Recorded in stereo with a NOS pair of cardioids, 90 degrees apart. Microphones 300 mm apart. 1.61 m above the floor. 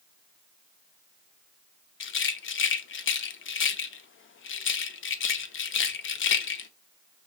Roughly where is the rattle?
Ahead left.